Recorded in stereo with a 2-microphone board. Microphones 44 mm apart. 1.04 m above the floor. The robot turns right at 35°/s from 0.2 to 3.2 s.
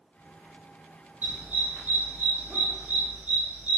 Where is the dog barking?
45° right (ahead or behind), 2 m; by 3.8 s 60° right (ahead or behind), 2 m.